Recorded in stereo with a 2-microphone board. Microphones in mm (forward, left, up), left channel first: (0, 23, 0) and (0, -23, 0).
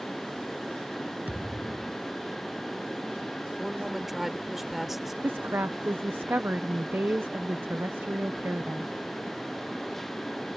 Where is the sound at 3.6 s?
5° right (ahead or behind).